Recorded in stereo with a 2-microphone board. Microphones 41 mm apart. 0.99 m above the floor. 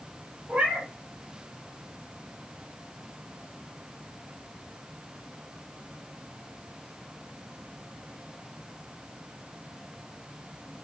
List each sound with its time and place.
0.5 s a cat meowing: 30° right (ahead or behind), 1.0 m